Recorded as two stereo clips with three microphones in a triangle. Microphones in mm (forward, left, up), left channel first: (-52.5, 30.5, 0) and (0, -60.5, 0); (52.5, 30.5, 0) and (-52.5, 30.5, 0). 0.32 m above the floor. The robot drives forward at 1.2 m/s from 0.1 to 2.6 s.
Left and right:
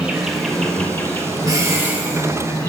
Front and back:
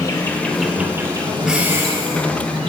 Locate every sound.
0.0 s an insect: 15° left, 1.2 m; by 2.7 s 175° left, 2.5 m
1.4 s breathing: 95° right, 1.0 m; by 2.3 s 145° right, 1.5 m